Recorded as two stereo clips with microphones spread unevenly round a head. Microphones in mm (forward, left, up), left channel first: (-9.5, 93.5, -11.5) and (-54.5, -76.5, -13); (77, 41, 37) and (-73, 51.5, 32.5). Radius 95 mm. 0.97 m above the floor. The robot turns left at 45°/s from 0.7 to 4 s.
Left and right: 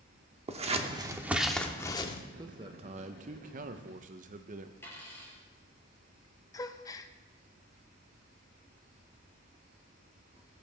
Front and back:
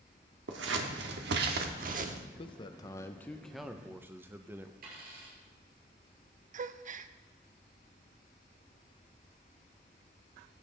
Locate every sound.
0.5 s scissors: 160° right, 0.9 m; by 2.2 s 135° left, 0.9 m
2.4 s a man speaking: 45° right, 0.7 m; by 4.7 s 115° right, 0.7 m
4.8 s a dropped coin: 150° left, 5 m
6.5 s a gasp: 145° left, 0.5 m